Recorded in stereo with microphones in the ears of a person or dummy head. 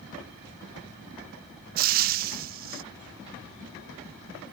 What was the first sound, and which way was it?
Frying, 45° right (ahead or behind).